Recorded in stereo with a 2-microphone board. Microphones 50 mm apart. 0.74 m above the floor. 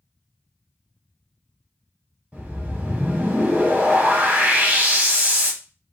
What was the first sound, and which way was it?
A whoosh, 30° right (ahead or behind).